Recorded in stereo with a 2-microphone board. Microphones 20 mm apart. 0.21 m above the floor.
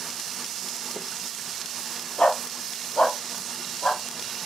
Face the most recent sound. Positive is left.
turn(degrees=80)